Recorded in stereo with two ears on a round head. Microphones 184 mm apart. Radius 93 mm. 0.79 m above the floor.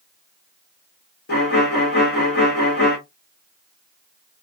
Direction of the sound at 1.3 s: 50° left (ahead or behind).